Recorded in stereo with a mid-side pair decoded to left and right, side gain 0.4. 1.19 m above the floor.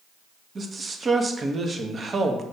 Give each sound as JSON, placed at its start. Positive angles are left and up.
{"t": 0.6, "sound": "a man speaking", "azimuth_deg": -40, "distance_m": 1.2}